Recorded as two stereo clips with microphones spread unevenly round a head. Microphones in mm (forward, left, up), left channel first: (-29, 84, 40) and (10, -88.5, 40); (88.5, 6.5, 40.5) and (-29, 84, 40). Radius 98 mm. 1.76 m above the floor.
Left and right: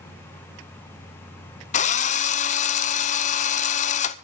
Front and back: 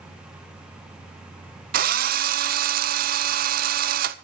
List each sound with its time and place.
1.7 s a drill: 150° left, 0.7 m